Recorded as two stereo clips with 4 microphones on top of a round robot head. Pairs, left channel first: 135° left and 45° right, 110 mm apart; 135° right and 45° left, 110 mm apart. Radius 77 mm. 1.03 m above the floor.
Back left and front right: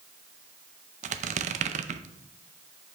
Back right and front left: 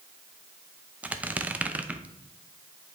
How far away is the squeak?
About 0.6 m.